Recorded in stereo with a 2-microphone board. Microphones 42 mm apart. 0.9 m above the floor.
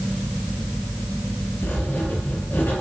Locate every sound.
1.6 s writing: 65° left (ahead or behind), 5 m